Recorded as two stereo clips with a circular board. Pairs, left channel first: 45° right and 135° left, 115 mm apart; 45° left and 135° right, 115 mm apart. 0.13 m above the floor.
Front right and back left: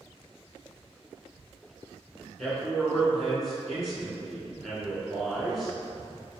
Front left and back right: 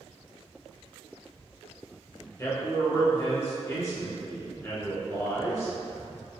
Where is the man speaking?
45° left, 1.4 m.